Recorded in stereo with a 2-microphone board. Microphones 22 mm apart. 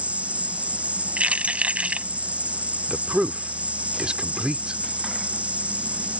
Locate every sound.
0.0 s an insect: 70° right (ahead or behind)
1.2 s keys jangling: 80° right
2.9 s a man speaking: 45° right (ahead or behind)